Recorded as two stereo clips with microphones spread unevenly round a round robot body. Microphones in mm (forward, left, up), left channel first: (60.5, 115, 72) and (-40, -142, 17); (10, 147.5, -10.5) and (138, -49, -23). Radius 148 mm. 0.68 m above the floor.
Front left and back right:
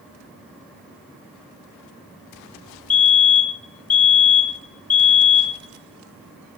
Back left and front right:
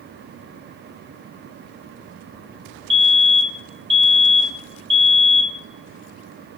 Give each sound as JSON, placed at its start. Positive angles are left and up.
{"t": 2.9, "sound": "a fire alarm", "azimuth_deg": 5, "distance_m": 3.0}